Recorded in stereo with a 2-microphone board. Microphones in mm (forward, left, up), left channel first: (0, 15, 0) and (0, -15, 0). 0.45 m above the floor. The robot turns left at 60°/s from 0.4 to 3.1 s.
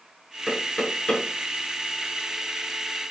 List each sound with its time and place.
0.5 s knocking: 5° right (ahead or behind), 5 m; by 1.2 s 45° left (ahead or behind), 5 m